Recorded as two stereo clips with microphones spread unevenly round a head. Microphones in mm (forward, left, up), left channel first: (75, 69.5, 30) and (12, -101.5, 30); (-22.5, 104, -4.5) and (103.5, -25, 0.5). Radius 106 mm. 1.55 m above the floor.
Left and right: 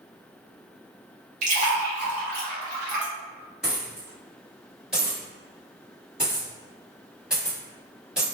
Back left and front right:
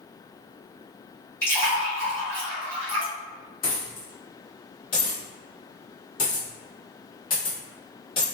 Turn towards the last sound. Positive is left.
turn(degrees=170)